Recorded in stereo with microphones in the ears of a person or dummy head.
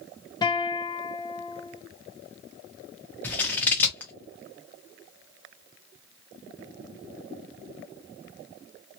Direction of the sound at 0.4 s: 15° left (ahead or behind).